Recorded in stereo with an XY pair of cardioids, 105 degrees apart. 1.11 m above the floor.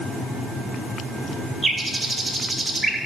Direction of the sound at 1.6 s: 20° right.